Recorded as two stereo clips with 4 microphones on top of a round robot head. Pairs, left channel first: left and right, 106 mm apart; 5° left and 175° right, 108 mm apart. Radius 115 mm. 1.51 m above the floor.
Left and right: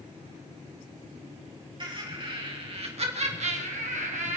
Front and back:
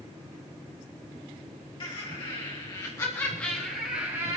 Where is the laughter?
45° right, 4 m; by 4.4 s 110° right, 2 m.